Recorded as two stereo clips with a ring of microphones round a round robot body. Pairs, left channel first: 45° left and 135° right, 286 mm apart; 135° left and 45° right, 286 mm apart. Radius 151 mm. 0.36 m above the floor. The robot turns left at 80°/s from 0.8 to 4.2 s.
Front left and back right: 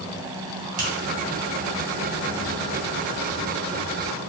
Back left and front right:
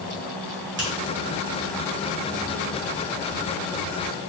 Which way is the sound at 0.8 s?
85° right.